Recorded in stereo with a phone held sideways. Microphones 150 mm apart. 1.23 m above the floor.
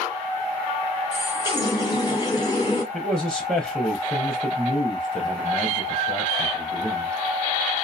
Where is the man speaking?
Centre (ahead or behind), 0.5 m.